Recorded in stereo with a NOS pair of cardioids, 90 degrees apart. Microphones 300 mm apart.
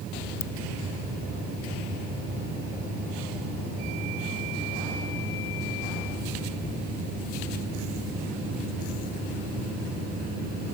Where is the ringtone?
60° left.